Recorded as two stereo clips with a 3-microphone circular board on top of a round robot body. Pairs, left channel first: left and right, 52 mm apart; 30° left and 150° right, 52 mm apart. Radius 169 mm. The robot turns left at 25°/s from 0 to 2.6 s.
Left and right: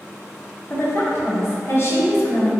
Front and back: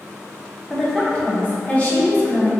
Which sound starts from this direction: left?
A woman speaking, at 0.7 s.